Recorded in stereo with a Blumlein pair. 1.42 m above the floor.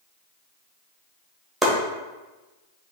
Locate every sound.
1.6 s chopping: 5° right, 1.3 m